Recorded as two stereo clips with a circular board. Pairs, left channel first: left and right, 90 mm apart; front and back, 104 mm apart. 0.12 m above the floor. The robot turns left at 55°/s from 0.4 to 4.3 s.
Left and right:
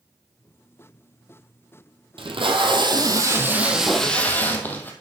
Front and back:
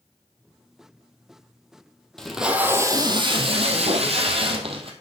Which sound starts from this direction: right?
Tape being pulled, at 2.2 s.